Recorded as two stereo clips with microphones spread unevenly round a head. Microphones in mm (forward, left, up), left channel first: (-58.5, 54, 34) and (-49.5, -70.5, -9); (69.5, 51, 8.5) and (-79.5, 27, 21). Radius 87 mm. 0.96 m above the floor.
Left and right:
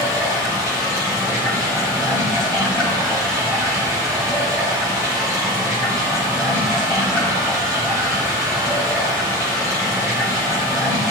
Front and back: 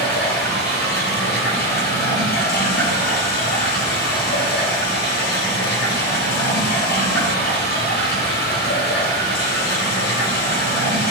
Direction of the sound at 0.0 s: 5° left.